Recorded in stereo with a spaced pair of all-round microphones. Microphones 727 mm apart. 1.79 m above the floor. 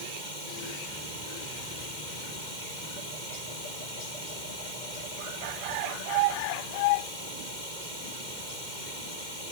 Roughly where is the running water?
Right.